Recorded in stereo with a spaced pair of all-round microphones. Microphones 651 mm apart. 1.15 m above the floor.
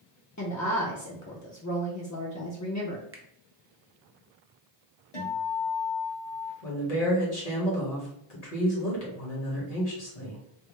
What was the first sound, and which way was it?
A woman speaking, 30° left (ahead or behind).